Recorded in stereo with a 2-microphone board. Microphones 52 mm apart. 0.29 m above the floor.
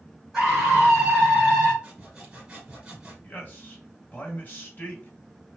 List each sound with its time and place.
0.3 s a scream: centre (ahead or behind), 3 m; by 1.7 s 5° right (ahead or behind), 2.5 m
1.8 s sawing: 15° right (ahead or behind), 2.5 m
3.2 s a man speaking: 40° left (ahead or behind), 2.0 m